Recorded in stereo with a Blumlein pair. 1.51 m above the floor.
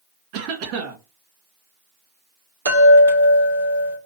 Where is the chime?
65° right, 2 m.